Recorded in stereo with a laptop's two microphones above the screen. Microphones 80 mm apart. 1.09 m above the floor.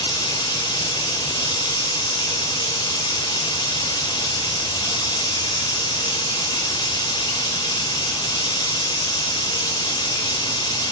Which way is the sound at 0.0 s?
75° left (ahead or behind).